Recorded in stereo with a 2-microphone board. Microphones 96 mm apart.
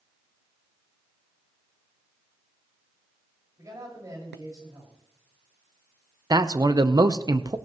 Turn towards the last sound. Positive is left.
turn(degrees=-45)  # may be behind; listen again after turning